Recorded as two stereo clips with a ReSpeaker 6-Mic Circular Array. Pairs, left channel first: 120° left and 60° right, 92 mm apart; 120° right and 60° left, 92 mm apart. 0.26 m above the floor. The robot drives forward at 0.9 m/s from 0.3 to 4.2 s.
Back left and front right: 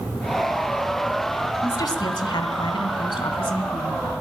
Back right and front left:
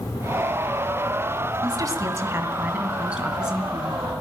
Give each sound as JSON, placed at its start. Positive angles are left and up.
{"t": 1.6, "sound": "a woman speaking", "azimuth_deg": 85, "distance_m": 1.7}